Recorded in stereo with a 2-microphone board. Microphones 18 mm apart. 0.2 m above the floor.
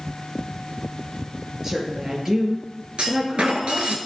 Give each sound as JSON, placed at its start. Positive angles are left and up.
{"t": 1.6, "sound": "a woman speaking", "side_deg": -25, "distance_m": 4.5}
{"t": 3.0, "sound": "a clunk", "side_deg": -70, "distance_m": 1.3}